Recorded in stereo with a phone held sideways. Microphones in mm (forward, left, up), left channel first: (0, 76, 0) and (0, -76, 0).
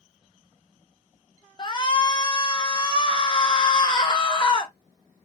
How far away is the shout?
About 0.6 m.